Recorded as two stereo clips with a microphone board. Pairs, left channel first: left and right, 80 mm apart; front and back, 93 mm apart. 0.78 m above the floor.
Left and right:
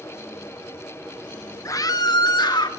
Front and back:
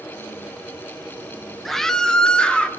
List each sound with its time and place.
1.6 s a scream: 90° left, 0.6 m; by 2.7 s 80° left, 1.3 m